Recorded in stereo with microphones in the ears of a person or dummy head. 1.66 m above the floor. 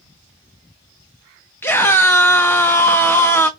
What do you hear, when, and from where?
1.6 s a scream: 5° left (ahead or behind), 0.5 m